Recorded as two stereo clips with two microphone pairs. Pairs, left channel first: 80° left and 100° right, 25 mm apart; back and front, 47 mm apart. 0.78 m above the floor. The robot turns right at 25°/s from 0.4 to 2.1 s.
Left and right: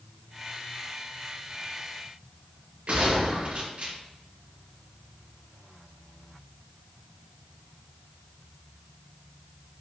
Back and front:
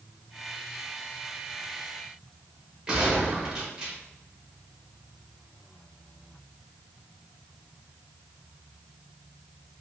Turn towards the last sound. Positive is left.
turn(degrees=-70)